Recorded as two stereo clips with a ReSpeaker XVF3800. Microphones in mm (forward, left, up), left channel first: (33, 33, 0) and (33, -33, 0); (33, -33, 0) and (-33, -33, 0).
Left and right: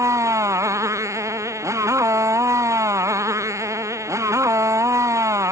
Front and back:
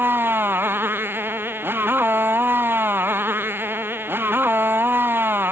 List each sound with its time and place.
0.0 s a motorcycle: 125° right